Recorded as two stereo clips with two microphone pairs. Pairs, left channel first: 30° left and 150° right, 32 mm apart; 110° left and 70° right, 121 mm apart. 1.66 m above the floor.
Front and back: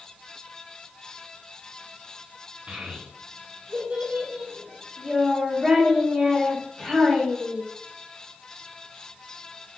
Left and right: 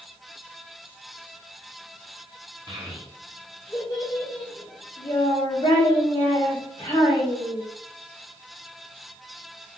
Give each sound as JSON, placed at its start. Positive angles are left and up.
{"t": 2.7, "sound": "a child speaking", "azimuth_deg": -110, "distance_m": 0.8}